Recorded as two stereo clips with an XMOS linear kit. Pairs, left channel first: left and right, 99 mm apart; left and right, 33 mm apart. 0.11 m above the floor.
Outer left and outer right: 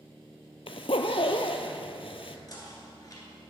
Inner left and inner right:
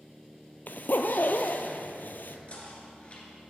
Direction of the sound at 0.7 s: 70° left (ahead or behind).